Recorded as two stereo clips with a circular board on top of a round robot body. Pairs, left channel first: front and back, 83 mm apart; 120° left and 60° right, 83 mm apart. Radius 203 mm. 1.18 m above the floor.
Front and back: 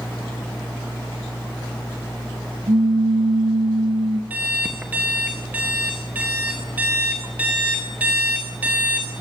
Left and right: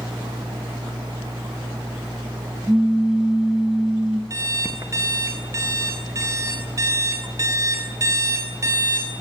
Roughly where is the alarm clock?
Right.